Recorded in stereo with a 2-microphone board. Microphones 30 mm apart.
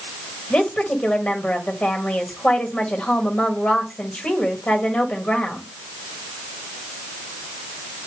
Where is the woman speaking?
40° left (ahead or behind), 1.8 m.